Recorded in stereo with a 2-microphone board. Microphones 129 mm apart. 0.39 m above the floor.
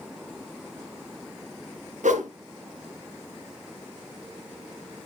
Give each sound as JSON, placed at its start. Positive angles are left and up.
{"t": 2.0, "sound": "a whoosh", "side_deg": -80, "distance_m": 1.4}